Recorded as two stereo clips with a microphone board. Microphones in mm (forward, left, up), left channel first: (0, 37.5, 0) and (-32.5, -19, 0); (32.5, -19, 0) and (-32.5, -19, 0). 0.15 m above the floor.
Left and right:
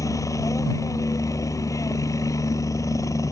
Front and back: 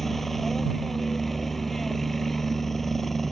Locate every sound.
0.0 s a helicopter: 85° left